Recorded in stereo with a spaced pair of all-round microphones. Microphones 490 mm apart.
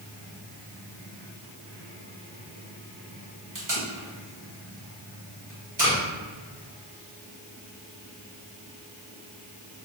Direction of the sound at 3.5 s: 40° right (ahead or behind).